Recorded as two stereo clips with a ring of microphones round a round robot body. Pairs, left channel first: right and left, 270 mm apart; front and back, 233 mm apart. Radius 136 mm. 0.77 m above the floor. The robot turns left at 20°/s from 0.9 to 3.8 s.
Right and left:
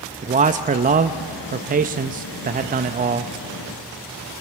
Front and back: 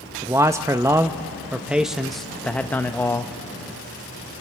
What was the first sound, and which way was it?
A man speaking, 115° left.